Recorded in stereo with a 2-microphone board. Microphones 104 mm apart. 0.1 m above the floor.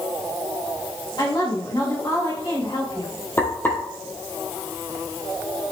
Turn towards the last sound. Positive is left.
turn(degrees=20)  # may be behind; listen again after turning